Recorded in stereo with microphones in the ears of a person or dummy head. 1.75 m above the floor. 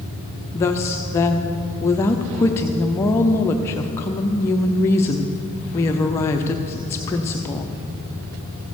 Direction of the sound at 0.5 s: 15° left (ahead or behind).